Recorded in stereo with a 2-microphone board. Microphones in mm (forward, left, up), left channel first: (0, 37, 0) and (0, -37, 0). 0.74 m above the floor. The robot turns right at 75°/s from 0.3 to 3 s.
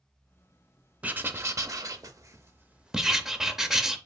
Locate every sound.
1.0 s writing: 155° right, 0.5 m; by 4.0 s 5° right, 0.5 m